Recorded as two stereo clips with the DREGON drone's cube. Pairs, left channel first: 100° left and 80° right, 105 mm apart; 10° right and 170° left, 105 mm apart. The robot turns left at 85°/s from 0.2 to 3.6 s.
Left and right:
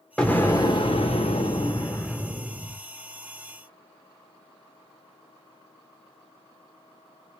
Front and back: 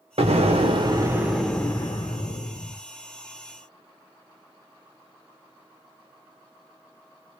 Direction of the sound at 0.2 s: Straight behind.